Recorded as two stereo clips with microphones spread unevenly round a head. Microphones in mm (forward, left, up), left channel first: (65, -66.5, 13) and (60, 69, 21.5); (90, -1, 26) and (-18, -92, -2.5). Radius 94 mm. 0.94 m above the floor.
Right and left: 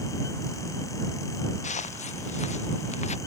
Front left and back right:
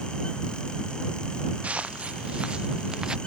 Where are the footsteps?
60° right; by 3.2 s 55° right.